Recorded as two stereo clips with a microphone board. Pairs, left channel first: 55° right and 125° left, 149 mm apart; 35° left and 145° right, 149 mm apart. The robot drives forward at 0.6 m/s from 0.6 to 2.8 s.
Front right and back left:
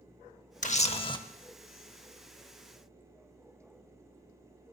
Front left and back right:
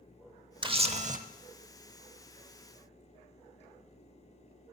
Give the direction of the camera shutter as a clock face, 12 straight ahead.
3 o'clock.